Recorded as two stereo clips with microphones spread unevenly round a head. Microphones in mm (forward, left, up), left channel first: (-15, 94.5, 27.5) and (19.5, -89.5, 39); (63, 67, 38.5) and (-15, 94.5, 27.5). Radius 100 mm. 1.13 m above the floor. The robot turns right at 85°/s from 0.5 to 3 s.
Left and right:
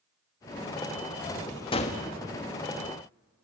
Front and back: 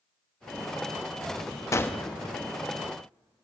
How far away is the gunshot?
About 1.2 m.